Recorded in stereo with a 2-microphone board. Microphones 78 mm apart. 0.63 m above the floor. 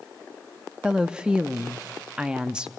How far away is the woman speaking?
About 0.6 m.